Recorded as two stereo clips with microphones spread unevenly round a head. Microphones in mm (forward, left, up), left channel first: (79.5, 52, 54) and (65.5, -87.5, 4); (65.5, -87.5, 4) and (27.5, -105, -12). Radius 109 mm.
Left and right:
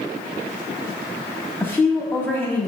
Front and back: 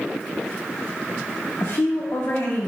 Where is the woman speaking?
Straight ahead, 1.9 m.